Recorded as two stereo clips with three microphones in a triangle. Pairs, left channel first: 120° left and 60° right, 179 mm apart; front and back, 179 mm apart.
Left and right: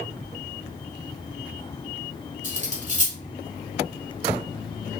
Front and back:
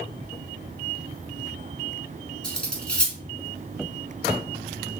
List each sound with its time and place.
2.4 s cutlery clinking: 80° right, 0.9 m